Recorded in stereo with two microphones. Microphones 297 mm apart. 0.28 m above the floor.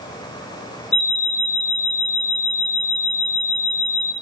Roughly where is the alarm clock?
Left.